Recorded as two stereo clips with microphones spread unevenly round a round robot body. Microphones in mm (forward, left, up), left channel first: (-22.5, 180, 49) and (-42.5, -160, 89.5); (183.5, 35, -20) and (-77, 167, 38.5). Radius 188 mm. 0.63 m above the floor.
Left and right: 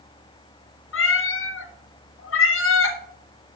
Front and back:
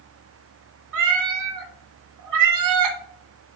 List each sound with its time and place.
0.9 s a cat meowing: 140° left, 1.6 m